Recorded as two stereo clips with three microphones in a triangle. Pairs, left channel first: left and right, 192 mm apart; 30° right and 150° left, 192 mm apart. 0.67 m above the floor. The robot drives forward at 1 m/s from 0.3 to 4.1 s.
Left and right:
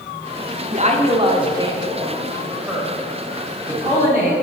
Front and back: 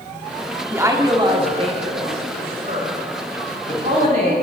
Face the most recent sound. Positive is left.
turn(degrees=-170)